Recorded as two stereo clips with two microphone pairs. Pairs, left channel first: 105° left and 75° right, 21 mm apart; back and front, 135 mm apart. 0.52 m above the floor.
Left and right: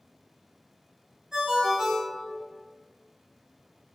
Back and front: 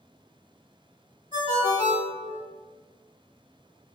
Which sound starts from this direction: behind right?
A ringtone, at 1.3 s.